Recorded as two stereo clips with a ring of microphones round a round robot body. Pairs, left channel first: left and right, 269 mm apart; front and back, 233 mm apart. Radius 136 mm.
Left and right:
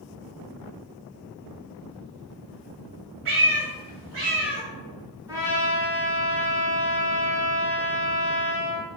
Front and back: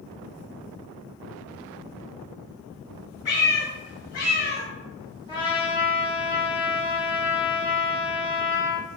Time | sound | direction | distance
3.2 | a cat meowing | 50° right | 1.0 m
5.3 | a trumpet | 35° right | 0.8 m